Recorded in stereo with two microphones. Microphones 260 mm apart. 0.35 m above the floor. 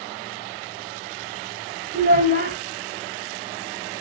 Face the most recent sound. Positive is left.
turn(degrees=-35)  # may be behind; listen again after turning